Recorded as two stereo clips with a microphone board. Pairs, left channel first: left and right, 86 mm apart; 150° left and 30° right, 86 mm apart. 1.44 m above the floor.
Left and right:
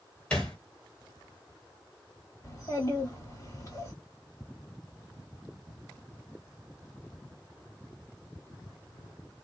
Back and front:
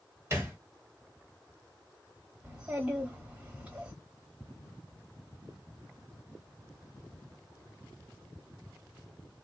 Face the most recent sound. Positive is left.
turn(degrees=40)